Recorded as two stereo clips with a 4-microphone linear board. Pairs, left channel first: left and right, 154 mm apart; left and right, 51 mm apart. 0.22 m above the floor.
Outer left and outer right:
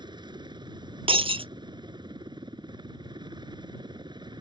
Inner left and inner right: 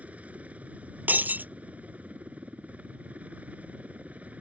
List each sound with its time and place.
0.0 s a helicopter: 30° right (ahead or behind)
1.1 s breaking glass: 40° right (ahead or behind)